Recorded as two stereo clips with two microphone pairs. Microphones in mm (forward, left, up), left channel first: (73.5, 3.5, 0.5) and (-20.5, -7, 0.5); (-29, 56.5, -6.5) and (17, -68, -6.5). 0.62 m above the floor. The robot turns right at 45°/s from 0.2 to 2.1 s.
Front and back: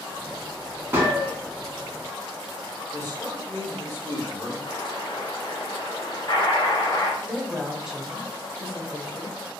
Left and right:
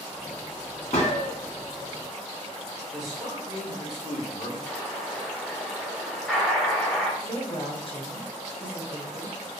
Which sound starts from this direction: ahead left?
An explosion, at 4.7 s.